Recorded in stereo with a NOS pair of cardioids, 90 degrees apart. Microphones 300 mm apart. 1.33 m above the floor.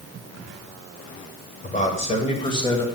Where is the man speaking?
30° left, 1.9 m; by 2.8 s 15° left, 2.5 m.